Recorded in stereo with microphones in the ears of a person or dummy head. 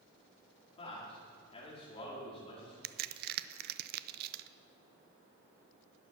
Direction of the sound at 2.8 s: 55° right (ahead or behind).